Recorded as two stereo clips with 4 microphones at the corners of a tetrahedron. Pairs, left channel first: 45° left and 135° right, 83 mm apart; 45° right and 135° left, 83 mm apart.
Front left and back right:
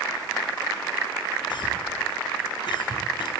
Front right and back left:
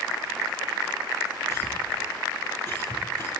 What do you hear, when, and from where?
1.5 s a cough: 15° left, 7 m